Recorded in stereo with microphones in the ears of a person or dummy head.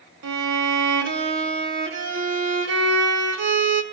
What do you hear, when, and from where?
0.2 s a violin: 65° right (ahead or behind), 1.0 m